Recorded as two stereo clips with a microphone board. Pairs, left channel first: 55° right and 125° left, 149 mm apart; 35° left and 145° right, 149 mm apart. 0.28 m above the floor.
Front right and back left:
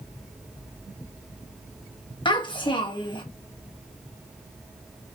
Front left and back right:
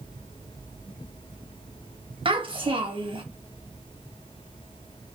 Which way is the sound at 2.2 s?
105° right.